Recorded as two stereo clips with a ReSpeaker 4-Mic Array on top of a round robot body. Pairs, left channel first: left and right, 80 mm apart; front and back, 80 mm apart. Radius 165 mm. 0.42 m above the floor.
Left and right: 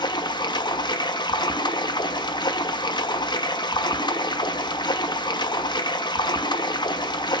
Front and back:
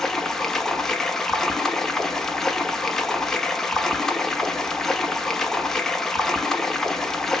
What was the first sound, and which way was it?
Running water, 85° left.